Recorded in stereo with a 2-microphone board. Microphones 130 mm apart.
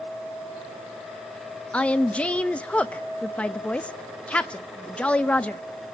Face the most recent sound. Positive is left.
turn(degrees=10)  # may be behind; listen again after turning